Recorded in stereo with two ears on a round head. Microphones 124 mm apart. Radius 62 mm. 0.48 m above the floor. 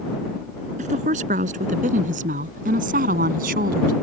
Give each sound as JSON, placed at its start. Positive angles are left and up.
{"t": 0.8, "sound": "a woman speaking", "side_deg": -55}